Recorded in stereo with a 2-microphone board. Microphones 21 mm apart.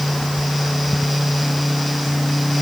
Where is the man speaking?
I don't hear a man speaking.